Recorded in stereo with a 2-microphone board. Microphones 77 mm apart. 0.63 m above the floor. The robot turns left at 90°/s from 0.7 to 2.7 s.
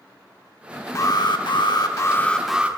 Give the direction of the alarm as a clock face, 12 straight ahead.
7 o'clock.